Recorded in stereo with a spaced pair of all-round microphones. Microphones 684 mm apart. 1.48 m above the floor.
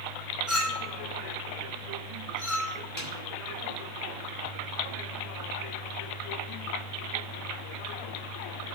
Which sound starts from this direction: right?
A snare drum, at 3.0 s.